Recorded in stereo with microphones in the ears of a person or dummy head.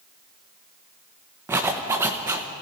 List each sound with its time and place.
1.5 s a zipper: 20° right (ahead or behind), 1.0 m